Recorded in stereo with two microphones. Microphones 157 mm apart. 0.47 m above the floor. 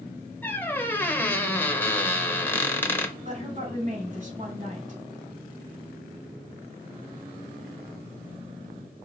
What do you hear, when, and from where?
0.4 s a squeak: 10° left (ahead or behind), 0.6 m
3.2 s a woman speaking: 50° right (ahead or behind), 2 m